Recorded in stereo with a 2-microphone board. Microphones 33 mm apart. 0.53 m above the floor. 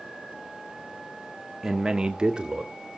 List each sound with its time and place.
1.6 s a man speaking: 10° right (ahead or behind), 0.9 m; by 2.7 s 25° right (ahead or behind), 1.6 m